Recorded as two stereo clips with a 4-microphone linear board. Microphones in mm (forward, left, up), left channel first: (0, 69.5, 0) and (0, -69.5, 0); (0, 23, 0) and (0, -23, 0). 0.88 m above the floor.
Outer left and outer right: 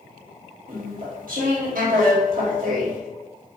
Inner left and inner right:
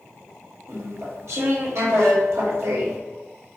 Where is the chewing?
70° right (ahead or behind), 1.5 m.